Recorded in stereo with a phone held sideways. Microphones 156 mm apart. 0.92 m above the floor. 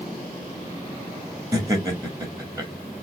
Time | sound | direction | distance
1.5 | laughter | 20° right (ahead or behind) | 2 m